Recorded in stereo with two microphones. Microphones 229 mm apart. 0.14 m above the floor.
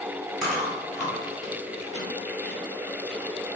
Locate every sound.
0.4 s chewing: 5° left (ahead or behind), 1.8 m